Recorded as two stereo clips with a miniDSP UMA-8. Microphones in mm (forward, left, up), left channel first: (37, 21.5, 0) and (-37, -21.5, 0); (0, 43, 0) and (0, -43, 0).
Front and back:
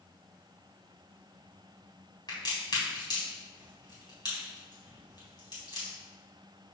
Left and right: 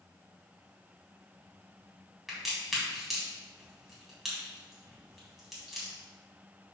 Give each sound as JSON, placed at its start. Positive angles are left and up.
{"t": 2.3, "sound": "a crack", "azimuth_deg": 0, "distance_m": 3.5}